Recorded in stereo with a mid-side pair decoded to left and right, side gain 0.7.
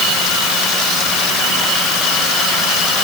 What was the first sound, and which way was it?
Only background noise.